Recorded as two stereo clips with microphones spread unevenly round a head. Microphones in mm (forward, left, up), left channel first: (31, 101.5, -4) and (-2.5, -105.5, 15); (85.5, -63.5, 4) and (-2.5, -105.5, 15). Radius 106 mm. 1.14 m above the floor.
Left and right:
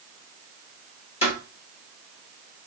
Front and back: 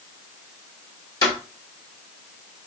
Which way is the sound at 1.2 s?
40° left.